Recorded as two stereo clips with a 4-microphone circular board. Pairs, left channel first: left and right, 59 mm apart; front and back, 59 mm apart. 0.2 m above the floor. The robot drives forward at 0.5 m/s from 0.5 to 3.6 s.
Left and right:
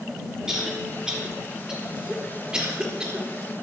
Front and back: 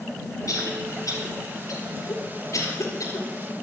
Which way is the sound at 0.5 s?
10° right.